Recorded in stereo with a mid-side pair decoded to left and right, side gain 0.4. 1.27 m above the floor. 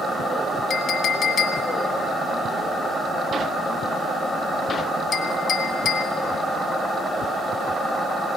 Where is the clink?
65° left, 1.5 m.